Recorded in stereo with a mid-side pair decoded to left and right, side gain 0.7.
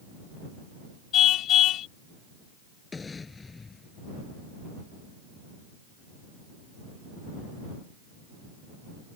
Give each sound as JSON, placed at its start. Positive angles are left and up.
{"t": 1.1, "sound": "a car horn", "azimuth_deg": 50}
{"t": 2.9, "sound": "an explosion", "azimuth_deg": 20}